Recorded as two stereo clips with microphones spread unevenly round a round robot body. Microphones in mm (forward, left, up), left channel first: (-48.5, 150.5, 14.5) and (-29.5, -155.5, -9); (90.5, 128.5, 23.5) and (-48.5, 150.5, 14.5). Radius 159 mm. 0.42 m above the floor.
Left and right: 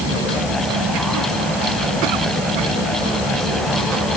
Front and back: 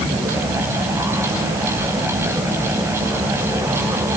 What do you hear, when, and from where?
Only background noise.